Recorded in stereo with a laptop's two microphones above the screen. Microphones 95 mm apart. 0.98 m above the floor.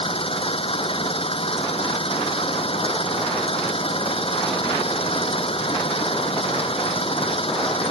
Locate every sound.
0.0 s an engine running: 75° left (ahead or behind)